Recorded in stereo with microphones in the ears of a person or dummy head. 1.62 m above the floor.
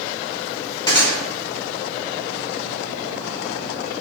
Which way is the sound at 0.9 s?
25° left (ahead or behind).